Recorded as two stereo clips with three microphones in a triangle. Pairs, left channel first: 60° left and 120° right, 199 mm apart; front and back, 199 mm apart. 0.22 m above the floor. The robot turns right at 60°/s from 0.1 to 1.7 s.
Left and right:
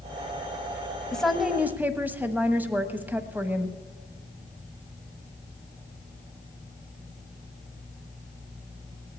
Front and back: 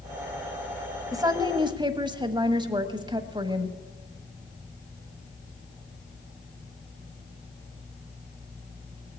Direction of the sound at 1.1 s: 140° left.